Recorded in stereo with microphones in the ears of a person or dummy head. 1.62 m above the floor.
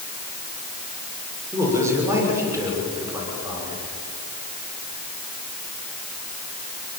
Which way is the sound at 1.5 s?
15° right (ahead or behind).